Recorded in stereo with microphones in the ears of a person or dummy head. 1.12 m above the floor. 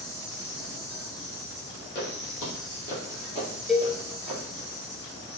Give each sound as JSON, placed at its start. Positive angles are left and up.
{"t": 0.0, "sound": "an insect", "side_deg": -35, "distance_m": 1.4}
{"t": 1.9, "sound": "footsteps", "side_deg": 45, "distance_m": 1.7}
{"t": 3.7, "sound": "a cowbell", "side_deg": 0, "distance_m": 0.6}